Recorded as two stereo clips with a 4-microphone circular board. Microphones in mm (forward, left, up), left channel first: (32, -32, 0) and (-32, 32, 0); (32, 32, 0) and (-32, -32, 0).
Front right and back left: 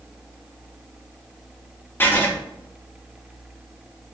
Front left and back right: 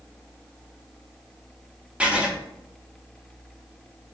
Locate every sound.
2.0 s writing: 75° right, 0.6 m